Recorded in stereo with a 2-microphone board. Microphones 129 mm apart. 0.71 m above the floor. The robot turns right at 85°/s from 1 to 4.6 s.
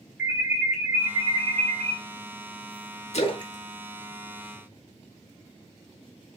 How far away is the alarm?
About 1.7 m.